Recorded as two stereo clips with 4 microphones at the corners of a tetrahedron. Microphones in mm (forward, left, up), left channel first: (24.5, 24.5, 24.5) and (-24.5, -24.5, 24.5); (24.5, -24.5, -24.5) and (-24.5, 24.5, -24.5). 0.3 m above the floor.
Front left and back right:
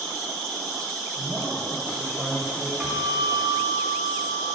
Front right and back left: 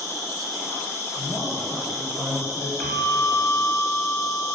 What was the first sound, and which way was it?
An insect, 35° right.